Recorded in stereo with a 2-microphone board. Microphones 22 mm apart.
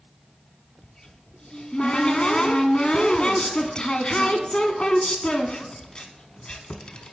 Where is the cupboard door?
40° left (ahead or behind), 0.6 m.